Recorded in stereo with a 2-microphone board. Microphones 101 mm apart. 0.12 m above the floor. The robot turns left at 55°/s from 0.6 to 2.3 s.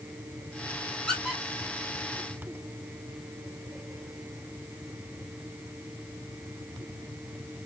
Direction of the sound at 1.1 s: 5° left (ahead or behind).